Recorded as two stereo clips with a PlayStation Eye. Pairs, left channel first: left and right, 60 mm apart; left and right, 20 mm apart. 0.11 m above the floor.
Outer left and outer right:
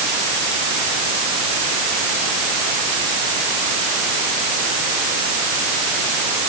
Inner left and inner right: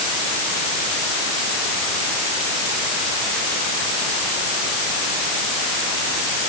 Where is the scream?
No scream in this recording.